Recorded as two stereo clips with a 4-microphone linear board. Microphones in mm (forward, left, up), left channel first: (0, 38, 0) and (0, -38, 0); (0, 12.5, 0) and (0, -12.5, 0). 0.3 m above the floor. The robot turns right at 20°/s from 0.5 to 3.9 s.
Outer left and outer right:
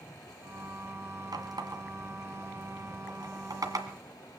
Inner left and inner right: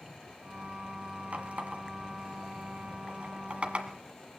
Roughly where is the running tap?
Right.